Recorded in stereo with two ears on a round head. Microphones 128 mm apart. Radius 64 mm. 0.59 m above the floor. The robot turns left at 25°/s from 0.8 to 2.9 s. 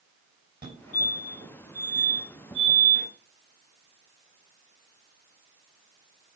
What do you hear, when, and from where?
0.6 s a fire alarm: 40° right (ahead or behind), 5.5 m; by 3.1 s 75° right (ahead or behind), 5.5 m